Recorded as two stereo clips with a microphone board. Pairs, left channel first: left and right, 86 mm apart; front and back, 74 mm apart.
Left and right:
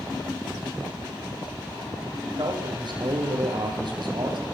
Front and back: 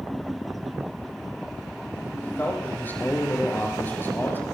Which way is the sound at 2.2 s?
65° right.